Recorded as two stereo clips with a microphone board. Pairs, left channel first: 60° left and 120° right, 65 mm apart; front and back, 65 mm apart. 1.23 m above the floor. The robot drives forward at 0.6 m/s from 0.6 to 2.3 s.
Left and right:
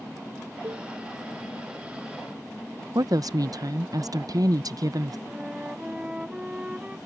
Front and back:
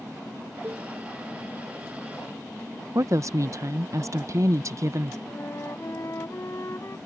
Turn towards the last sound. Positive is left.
turn(degrees=-45)